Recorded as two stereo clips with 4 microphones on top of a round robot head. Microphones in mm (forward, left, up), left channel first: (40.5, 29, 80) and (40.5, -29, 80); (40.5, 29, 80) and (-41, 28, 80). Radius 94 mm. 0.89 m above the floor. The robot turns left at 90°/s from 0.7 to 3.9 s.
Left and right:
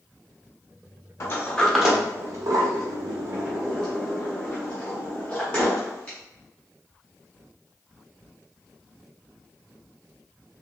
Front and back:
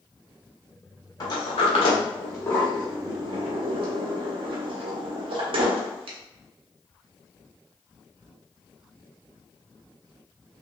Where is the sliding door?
45° left, 0.6 m; by 6.2 s 165° left, 0.6 m.